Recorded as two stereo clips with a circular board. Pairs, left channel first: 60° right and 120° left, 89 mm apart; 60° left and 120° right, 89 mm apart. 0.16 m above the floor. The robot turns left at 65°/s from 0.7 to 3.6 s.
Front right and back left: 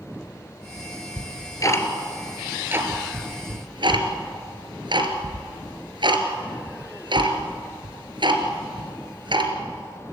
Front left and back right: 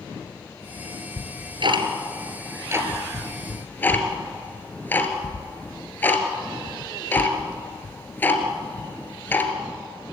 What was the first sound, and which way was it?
Ticking, 75° right.